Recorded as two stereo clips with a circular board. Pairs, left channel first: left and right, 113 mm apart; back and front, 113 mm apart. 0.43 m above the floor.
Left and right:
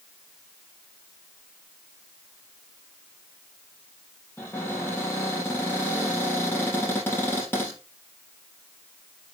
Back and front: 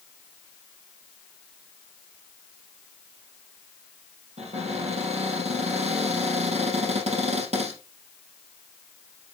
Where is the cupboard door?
20° left, 4.5 m.